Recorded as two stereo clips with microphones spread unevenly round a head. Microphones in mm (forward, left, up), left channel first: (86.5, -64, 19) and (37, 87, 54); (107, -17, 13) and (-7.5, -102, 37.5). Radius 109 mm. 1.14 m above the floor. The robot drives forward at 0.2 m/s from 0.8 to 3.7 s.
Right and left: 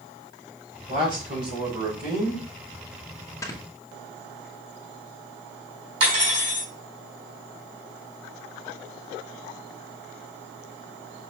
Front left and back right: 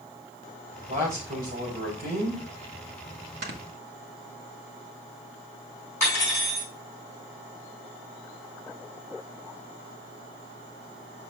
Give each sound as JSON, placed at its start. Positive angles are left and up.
{"t": 0.9, "sound": "a man speaking", "azimuth_deg": 165, "distance_m": 4.0}
{"t": 3.4, "sound": "snoring", "azimuth_deg": -145, "distance_m": 1.1}
{"t": 6.0, "sound": "cutlery clinking", "azimuth_deg": 140, "distance_m": 4.0}